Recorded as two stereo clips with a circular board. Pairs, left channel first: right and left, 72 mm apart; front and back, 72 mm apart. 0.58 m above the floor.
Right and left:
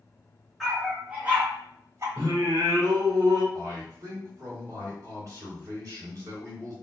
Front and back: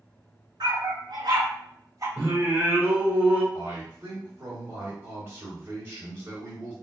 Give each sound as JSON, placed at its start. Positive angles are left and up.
{"t": 0.6, "sound": "a dog barking", "azimuth_deg": 175, "distance_m": 1.6}
{"t": 2.2, "sound": "singing", "azimuth_deg": 115, "distance_m": 1.1}
{"t": 3.5, "sound": "a man speaking", "azimuth_deg": 120, "distance_m": 2.0}